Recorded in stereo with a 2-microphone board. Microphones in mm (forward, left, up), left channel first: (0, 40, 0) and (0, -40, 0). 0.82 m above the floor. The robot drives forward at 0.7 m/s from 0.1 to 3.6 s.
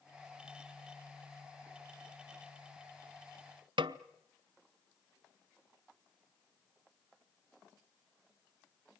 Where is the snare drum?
85° right, 0.8 m.